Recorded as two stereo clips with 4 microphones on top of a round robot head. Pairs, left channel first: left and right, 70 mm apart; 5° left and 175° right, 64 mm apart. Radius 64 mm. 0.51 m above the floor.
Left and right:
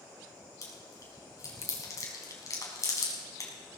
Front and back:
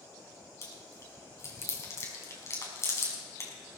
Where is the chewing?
45° left, 5 m.